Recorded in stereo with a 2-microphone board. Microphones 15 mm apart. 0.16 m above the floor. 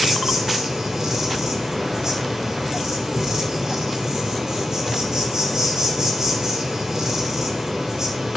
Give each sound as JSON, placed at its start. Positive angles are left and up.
{"t": 0.0, "sound": "an insect", "side_deg": -40, "distance_m": 3.5}